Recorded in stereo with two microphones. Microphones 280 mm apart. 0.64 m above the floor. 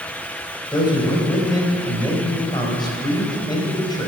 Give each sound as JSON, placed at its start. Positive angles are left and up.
{"t": 0.7, "sound": "a man speaking", "side_deg": 15, "distance_m": 3.5}